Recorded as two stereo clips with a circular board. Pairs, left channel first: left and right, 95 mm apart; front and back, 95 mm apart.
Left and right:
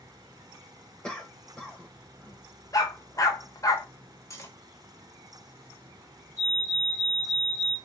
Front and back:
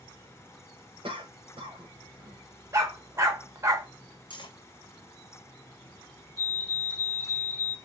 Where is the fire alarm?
150° left, 2.5 m.